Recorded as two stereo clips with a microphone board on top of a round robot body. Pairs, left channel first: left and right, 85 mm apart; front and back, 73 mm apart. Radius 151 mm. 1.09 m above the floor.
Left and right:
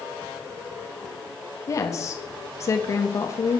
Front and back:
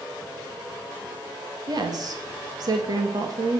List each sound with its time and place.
1.7 s a woman speaking: 145° left, 2 m